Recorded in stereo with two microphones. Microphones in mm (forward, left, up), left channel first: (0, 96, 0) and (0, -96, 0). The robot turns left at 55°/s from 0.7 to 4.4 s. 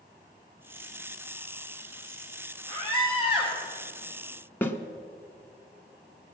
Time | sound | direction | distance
2.7 | a scream | 30° left | 6.5 m
4.6 | a snare drum | 10° left (ahead or behind) | 1.1 m